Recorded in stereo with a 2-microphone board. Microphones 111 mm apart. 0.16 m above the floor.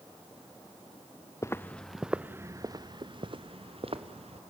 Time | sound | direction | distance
1.4 | footsteps | 25° left (ahead or behind) | 1.0 m